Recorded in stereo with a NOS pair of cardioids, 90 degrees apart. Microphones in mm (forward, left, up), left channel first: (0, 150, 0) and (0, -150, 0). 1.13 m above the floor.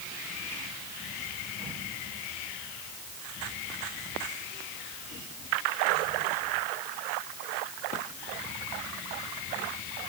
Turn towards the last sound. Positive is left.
No sound to turn to.